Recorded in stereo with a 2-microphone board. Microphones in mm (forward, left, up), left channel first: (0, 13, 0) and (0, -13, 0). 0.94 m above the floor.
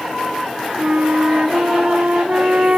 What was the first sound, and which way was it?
A flute, 70° right (ahead or behind).